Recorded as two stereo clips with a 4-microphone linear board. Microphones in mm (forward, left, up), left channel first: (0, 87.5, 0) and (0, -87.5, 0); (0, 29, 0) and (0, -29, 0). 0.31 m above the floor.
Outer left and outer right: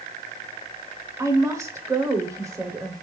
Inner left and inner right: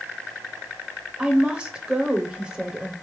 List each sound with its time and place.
1.2 s a woman speaking: 20° right (ahead or behind), 0.9 m